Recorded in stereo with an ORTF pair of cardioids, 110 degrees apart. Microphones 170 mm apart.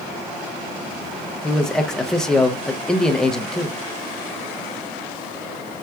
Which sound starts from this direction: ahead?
A man speaking, at 1.4 s.